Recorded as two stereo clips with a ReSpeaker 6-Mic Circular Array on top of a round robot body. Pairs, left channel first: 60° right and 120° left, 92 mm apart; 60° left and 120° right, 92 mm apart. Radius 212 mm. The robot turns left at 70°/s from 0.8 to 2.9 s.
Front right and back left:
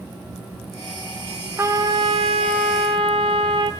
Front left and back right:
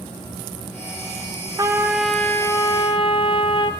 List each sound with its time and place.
1.6 s a trumpet: 175° right, 1.0 m; by 3.7 s 90° left, 1.0 m